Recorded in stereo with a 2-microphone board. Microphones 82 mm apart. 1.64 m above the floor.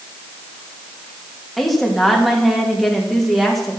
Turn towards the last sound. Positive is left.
turn(degrees=0)  # may be behind; listen again after turning